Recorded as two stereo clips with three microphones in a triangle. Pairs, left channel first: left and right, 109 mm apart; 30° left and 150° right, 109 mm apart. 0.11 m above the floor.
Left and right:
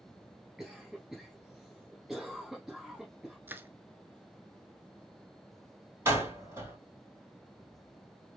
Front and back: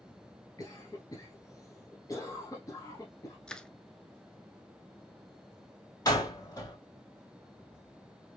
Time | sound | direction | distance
0.6 | a cough | 5° right | 1.4 m
3.5 | crushing | 45° right | 0.6 m
6.0 | a door slam | 25° right | 3 m